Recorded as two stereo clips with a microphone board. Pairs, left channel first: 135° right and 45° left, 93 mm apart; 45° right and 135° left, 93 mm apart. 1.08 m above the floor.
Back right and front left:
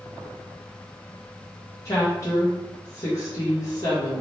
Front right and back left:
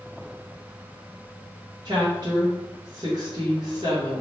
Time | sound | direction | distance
1.9 | a woman speaking | 170° left | 1.1 m